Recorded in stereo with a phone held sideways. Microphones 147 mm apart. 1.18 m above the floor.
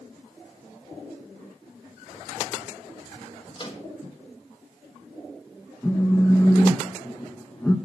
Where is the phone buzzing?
15° left (ahead or behind), 0.8 m.